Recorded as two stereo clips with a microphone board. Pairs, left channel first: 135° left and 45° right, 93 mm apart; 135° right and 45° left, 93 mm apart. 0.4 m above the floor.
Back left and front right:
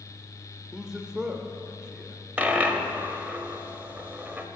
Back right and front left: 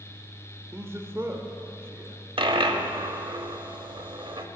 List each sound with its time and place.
0.7 s a man speaking: 30° left, 0.9 m
2.4 s a dropped coin: 30° left, 0.6 m